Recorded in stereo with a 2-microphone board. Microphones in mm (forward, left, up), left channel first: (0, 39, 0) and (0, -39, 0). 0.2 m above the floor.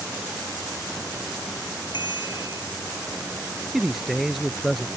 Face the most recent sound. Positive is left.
turn(degrees=0)  # may be behind; listen again after turning